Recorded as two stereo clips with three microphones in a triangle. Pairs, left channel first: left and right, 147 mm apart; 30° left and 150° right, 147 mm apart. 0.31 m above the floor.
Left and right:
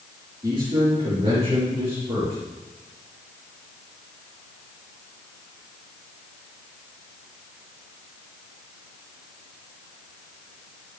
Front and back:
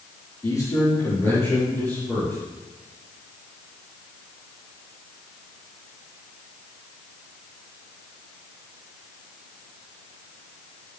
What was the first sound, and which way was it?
A man speaking, 35° right.